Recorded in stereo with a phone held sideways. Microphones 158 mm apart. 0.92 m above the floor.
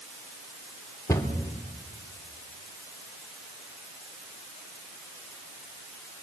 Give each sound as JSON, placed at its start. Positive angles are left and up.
{"t": 1.1, "sound": "a cupboard door", "side_deg": 20, "distance_m": 3.0}